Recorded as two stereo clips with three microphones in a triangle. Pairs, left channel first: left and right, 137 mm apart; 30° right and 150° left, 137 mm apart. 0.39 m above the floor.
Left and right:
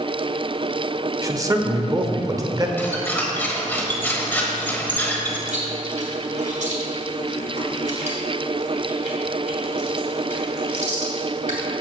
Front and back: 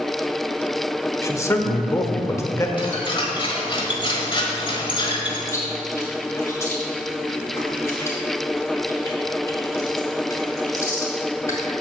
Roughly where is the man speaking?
Right.